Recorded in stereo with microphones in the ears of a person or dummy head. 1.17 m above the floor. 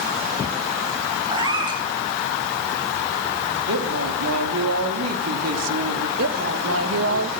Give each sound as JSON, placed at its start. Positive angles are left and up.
{"t": 1.3, "sound": "a cat meowing", "side_deg": -30, "distance_m": 2.5}
{"t": 3.7, "sound": "a woman speaking", "side_deg": -80, "distance_m": 3.0}
{"t": 6.2, "sound": "a woman speaking", "side_deg": -70, "distance_m": 1.5}